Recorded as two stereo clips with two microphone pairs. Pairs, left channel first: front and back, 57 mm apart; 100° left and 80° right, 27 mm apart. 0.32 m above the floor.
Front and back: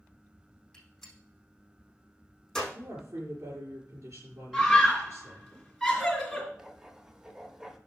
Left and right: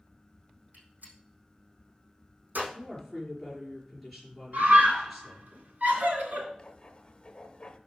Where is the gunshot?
80° right, 4.5 m.